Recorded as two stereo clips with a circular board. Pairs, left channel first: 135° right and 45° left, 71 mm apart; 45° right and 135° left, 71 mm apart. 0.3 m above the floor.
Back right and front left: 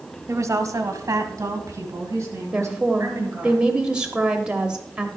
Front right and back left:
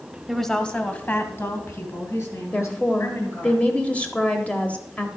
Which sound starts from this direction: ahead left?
A woman speaking, at 0.3 s.